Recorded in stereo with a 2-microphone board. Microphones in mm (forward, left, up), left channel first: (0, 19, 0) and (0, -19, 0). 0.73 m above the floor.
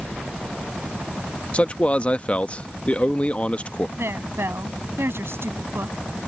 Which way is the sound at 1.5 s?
30° left (ahead or behind).